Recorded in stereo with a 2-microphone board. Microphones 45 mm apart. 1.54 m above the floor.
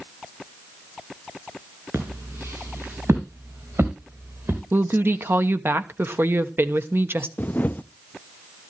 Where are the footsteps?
65° right (ahead or behind), 5.5 m; by 4.6 s 75° right (ahead or behind), 5 m.